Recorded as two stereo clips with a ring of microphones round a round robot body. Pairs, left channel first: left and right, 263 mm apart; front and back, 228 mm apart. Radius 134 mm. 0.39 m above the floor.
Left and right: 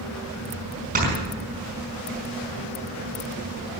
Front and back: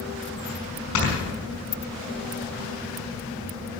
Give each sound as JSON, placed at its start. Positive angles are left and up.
{"t": 0.9, "sound": "snoring", "azimuth_deg": -30, "distance_m": 5.0}